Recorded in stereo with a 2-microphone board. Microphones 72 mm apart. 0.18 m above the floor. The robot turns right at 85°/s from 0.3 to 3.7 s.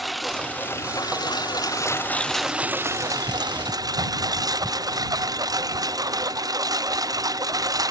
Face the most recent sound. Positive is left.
turn(degrees=-65)  # may be behind; listen again after turning